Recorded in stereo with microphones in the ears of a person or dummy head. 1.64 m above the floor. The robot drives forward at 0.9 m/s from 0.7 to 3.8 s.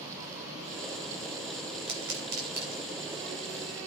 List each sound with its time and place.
1.9 s a pop: 70° right (ahead or behind), 3.5 m; by 2.9 s 60° right (ahead or behind), 4 m